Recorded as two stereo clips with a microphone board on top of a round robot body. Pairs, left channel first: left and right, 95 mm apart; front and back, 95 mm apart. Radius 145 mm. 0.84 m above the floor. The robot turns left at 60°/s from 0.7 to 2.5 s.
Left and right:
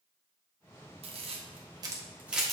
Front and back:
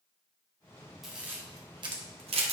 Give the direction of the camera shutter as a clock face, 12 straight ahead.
3 o'clock.